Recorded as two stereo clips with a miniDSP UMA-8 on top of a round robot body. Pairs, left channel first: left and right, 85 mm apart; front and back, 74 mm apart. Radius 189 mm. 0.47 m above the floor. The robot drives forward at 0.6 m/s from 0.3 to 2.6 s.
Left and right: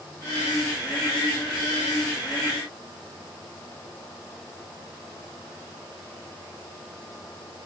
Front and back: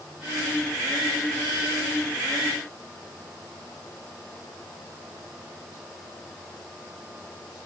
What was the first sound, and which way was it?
Only background noise.